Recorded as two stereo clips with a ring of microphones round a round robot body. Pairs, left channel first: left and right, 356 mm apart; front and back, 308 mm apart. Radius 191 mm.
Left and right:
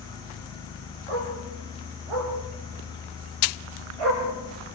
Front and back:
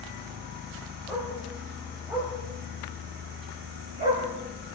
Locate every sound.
1.1 s a dog barking: 90° right, 8 m; by 4.2 s 110° right, 6 m